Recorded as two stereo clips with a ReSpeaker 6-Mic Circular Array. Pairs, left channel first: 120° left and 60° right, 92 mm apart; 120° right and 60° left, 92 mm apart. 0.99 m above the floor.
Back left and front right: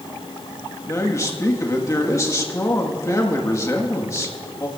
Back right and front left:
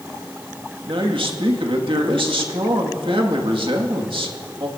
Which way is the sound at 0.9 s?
65° left.